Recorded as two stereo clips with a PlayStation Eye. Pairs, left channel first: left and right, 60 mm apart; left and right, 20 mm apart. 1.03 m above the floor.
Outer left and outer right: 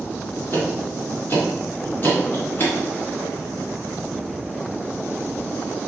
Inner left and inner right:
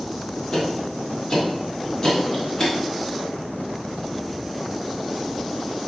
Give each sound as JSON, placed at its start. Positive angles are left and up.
{"t": 0.5, "sound": "ticking", "side_deg": 35, "distance_m": 1.9}